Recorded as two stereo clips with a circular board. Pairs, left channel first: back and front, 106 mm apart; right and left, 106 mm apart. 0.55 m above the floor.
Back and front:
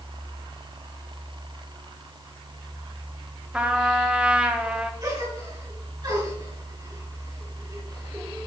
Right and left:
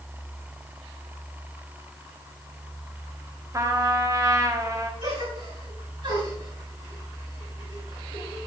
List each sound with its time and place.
3.5 s a trumpet: 70° left, 0.9 m
5.0 s a gasp: 45° left, 4.5 m